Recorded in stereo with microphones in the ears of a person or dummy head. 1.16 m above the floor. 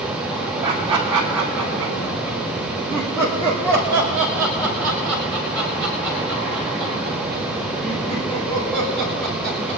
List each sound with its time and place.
0.6 s laughter: 15° right (ahead or behind), 2.5 m; by 9.8 s 40° left (ahead or behind), 7 m